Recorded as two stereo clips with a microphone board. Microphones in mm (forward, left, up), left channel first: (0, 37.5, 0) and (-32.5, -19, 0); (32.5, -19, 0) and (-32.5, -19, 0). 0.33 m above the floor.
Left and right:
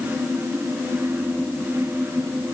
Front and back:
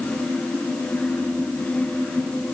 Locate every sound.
Only background noise.